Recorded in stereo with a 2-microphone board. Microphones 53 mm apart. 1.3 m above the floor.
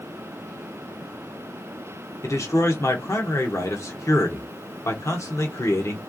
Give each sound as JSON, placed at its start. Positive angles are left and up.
{"t": 2.2, "sound": "a man speaking", "side_deg": 70, "distance_m": 1.2}